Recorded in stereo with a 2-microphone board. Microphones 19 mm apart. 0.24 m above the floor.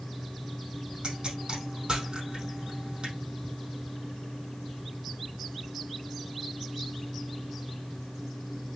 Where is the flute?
I don't hear a flute.